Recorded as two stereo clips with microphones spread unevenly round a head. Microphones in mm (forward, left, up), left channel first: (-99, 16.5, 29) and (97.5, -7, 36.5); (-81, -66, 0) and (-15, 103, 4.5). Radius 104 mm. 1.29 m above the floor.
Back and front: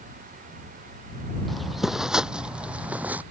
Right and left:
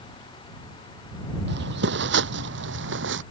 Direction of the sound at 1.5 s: 85° left.